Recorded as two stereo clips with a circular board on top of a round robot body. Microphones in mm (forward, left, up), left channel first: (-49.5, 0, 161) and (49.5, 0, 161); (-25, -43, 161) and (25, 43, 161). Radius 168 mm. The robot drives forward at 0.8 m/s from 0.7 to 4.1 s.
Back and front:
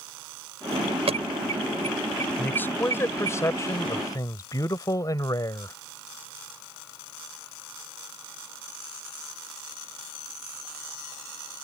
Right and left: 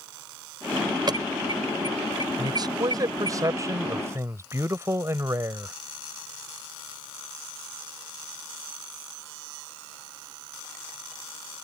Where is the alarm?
15° left; by 3.4 s 20° left.